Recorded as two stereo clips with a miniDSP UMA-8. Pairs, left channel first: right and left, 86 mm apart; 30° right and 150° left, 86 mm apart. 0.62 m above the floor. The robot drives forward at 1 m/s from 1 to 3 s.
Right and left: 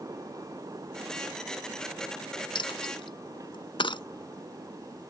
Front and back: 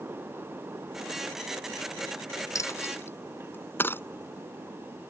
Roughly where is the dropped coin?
Right.